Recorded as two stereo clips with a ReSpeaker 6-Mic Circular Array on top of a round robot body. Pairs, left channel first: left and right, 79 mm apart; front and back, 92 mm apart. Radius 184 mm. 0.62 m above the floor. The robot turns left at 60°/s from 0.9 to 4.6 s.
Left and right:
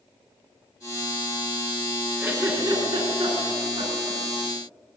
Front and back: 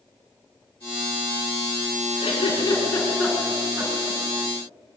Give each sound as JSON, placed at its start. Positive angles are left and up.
{"t": 2.2, "sound": "a giggle", "azimuth_deg": -25, "distance_m": 5.5}